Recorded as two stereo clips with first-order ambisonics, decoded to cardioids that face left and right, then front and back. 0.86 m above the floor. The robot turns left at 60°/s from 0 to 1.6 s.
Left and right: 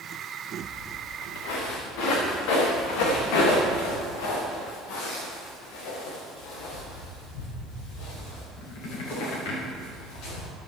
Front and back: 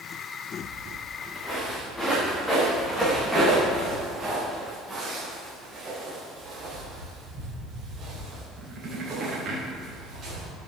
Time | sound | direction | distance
0.6 | footsteps | 140° left | 7 m